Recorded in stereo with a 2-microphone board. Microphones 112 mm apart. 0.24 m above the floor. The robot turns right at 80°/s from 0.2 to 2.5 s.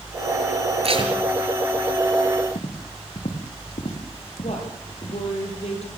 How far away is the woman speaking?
About 6 m.